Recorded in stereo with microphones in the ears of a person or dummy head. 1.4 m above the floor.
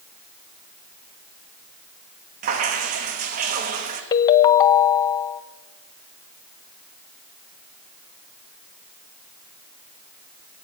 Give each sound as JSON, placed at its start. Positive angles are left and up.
{"t": 2.4, "sound": "dripping", "side_deg": -50, "distance_m": 1.4}
{"t": 4.1, "sound": "a ringtone", "side_deg": 20, "distance_m": 0.6}